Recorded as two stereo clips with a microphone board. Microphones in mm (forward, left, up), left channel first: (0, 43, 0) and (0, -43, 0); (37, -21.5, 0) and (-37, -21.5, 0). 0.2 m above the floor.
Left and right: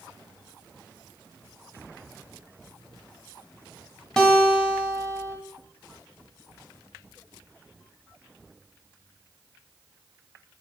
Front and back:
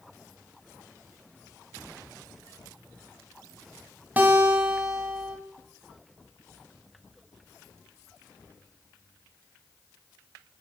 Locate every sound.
4.2 s a guitar: 160° left, 1.0 m